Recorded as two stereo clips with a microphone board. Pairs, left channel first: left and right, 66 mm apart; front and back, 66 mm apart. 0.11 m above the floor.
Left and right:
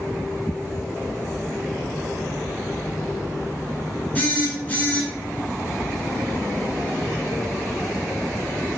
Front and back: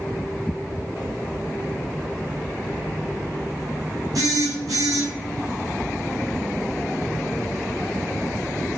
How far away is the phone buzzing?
About 0.8 m.